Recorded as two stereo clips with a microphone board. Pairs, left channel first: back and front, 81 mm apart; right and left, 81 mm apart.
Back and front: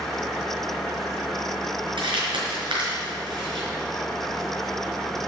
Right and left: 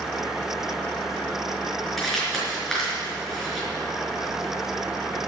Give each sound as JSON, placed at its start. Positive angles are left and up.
{"t": 2.0, "sound": "crumpling", "azimuth_deg": 0, "distance_m": 4.5}